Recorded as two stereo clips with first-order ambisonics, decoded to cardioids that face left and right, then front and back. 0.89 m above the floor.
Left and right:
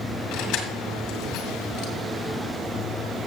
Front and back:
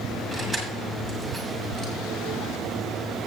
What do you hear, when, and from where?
0.3 s keys jangling: 90° left, 2.5 m